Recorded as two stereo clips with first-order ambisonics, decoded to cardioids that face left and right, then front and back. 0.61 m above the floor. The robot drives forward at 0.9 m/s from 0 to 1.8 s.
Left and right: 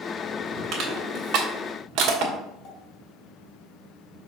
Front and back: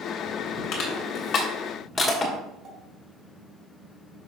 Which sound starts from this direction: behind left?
A pop, at 2.6 s.